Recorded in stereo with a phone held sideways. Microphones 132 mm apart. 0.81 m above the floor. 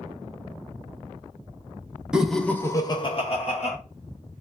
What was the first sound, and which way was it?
Laughter, 5° right (ahead or behind).